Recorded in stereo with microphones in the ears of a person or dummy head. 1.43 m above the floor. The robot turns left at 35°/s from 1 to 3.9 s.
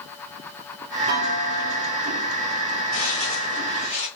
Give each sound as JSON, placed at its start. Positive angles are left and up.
{"t": 1.1, "sound": "a clunk", "azimuth_deg": -125, "distance_m": 0.7}
{"t": 2.9, "sound": "footsteps", "side_deg": 35, "distance_m": 2.0}